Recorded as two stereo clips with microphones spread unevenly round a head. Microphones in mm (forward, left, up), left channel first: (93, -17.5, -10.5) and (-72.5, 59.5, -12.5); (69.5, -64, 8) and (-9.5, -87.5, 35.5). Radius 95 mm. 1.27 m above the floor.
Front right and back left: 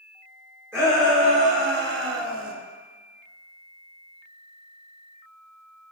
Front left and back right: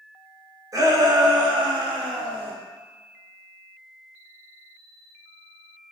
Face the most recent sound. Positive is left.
turn(degrees=155)